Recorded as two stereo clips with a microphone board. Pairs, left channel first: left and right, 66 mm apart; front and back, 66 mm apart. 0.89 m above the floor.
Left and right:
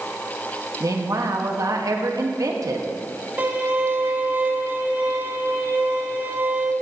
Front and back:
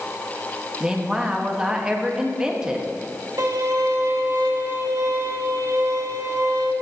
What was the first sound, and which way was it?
A woman speaking, 105° right.